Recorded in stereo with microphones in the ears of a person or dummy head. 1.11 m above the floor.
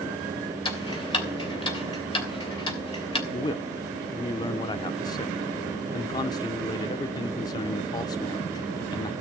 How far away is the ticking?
About 3 m.